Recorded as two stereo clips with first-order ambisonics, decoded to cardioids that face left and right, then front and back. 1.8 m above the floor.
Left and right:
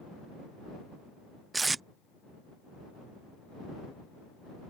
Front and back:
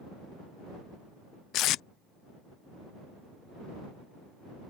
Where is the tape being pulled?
15° right.